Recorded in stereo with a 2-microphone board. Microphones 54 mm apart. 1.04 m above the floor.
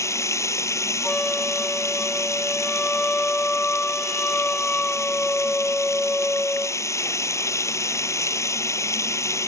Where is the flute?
20° left (ahead or behind).